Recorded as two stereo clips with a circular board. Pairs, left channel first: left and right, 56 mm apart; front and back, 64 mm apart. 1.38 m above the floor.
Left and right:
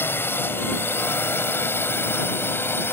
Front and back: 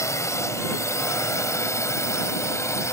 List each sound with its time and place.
0.0 s a drone: 40° left; by 2.9 s 45° left